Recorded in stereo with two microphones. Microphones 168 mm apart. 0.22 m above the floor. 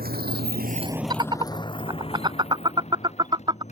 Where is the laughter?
30° right (ahead or behind).